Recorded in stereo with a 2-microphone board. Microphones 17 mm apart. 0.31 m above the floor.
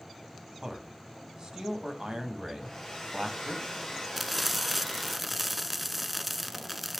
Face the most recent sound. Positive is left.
turn(degrees=-10)  # may be behind; listen again after turning